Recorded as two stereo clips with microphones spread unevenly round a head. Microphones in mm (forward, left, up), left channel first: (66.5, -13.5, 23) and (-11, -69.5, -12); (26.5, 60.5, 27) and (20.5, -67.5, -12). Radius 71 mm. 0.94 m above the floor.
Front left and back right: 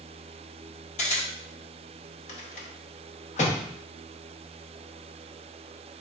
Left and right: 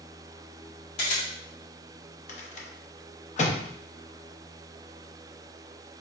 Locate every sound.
1.0 s a camera shutter: 65° left, 1.5 m
2.3 s a rattle: 50° left, 0.8 m